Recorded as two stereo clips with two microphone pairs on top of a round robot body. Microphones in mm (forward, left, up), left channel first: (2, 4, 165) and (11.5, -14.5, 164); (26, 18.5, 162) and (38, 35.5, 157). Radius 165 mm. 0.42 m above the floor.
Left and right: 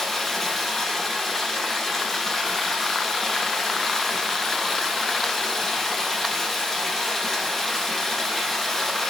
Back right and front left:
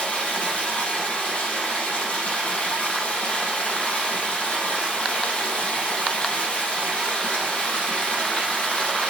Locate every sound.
0.0 s running water: 160° right, 4.5 m